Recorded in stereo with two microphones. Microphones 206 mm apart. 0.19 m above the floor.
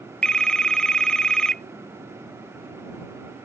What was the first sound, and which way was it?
A phone ringing, 5° left (ahead or behind).